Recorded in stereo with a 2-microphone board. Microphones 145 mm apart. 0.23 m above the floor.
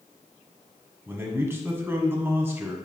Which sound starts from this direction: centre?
A man speaking, at 1.1 s.